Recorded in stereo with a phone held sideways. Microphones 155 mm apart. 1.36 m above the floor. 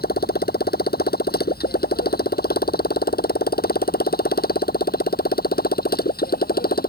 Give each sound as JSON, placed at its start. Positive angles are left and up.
{"t": 0.0, "sound": "a motorcycle", "side_deg": 85}